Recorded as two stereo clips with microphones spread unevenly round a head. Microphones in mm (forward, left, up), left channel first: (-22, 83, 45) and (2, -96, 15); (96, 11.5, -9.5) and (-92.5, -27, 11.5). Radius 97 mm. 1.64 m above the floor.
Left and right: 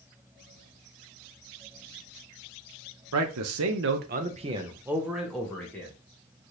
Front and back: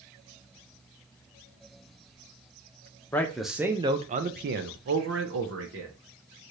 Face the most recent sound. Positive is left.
turn(degrees=175)